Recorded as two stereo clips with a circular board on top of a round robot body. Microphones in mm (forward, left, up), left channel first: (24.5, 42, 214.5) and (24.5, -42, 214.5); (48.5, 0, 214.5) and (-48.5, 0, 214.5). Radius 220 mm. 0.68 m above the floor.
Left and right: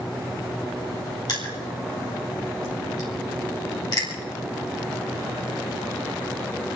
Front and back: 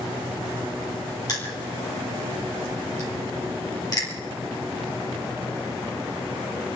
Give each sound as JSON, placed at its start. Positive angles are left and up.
{"t": 1.3, "sound": "crushing", "azimuth_deg": 50, "distance_m": 4.5}